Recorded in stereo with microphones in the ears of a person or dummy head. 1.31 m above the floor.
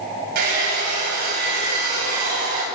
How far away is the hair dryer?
About 9 m.